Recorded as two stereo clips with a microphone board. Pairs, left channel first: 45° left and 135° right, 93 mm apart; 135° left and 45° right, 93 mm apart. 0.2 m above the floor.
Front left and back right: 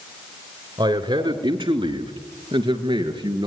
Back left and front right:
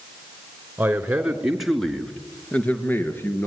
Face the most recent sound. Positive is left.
turn(degrees=-160)